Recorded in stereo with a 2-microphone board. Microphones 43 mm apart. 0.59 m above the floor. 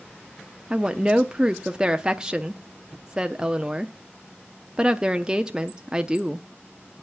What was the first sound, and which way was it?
A woman speaking, 20° right (ahead or behind).